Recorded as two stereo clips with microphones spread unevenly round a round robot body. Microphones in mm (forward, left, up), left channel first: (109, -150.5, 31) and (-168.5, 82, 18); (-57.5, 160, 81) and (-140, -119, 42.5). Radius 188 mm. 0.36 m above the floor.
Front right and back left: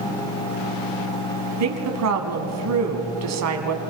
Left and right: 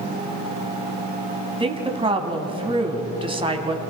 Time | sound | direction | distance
1.6 | a woman speaking | 175° right | 3 m